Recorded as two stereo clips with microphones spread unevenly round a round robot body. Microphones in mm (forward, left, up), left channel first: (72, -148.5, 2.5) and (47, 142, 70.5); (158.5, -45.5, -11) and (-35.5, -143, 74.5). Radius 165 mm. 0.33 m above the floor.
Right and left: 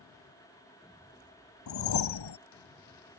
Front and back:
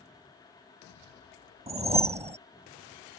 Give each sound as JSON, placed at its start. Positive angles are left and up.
{"t": 1.7, "sound": "a whoosh", "azimuth_deg": -80}